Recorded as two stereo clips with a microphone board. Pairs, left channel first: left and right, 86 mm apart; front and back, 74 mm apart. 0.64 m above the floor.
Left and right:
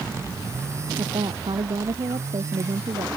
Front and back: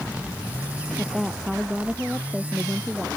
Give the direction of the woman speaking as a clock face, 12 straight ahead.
3 o'clock.